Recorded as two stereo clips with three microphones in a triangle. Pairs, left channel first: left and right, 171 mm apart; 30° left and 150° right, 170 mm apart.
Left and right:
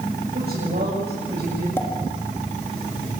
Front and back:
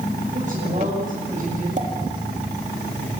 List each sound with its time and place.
0.3 s a woman speaking: 110° right, 7.5 m; by 1.7 s 105° right, 9 m
1.8 s a pop: 165° left, 3.5 m